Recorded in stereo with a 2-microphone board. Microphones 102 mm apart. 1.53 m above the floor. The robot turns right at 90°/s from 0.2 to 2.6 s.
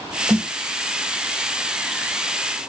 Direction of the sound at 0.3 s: 25° right (ahead or behind).